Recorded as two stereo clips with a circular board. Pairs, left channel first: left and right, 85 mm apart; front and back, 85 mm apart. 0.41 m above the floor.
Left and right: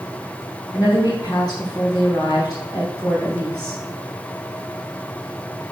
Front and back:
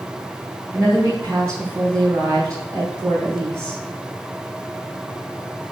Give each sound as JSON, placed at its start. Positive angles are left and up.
{"t": 0.7, "sound": "a woman speaking", "azimuth_deg": 120, "distance_m": 3.0}